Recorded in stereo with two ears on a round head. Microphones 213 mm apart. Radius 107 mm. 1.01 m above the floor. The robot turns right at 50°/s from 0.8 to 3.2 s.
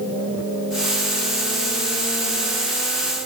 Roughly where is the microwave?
I don't hear a microwave.